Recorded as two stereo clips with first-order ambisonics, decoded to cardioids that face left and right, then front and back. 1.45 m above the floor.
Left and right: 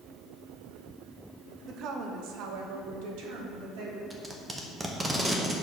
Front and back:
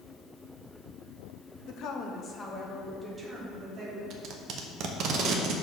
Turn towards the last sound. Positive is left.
turn(degrees=-165)